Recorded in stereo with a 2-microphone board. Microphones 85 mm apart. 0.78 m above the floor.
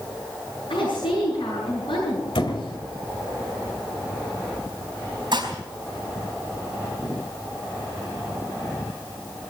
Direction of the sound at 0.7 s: 85° left.